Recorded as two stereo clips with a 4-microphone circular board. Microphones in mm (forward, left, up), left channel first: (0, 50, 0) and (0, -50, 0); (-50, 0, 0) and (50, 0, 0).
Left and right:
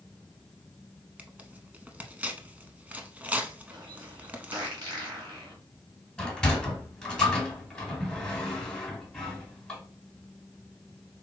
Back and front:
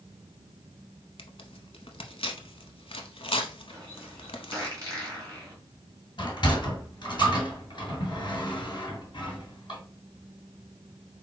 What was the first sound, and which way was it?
Tearing paper, 165° right.